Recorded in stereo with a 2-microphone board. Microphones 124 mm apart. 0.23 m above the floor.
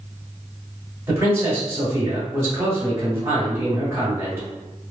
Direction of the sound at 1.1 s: 25° right (ahead or behind).